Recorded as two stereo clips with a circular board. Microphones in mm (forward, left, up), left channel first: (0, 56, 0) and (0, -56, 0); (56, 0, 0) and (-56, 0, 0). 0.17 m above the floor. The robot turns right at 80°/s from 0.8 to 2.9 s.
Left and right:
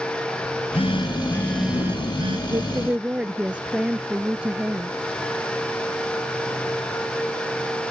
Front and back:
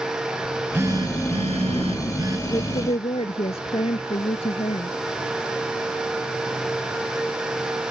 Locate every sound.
0.4 s a phone buzzing: 115° left; by 2.4 s 115° right
2.5 s a woman speaking: 45° right; by 4.9 s 10° right